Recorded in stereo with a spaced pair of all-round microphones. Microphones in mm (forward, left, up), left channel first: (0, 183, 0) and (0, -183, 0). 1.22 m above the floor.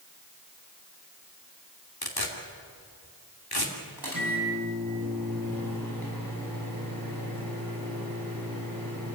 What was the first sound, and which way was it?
Tearing paper, 90° left.